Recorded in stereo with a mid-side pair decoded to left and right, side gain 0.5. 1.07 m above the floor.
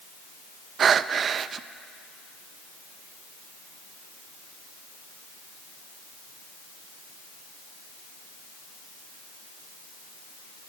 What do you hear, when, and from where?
0.8 s breathing: 50° right, 0.7 m